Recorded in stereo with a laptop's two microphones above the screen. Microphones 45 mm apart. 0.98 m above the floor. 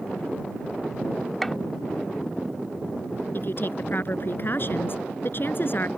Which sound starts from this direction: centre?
A gunshot, at 1.4 s.